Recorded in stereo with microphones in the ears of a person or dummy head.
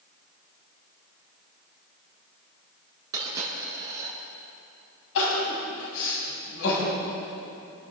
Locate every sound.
3.1 s a dropped coin: 20° right (ahead or behind), 6 m
5.2 s crying: 80° left, 5.5 m